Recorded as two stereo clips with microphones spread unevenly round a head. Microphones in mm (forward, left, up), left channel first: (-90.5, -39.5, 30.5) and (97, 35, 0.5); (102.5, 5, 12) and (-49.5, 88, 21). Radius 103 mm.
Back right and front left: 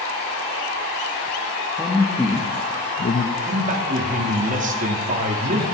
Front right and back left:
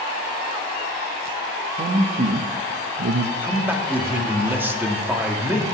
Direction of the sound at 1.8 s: 100° left.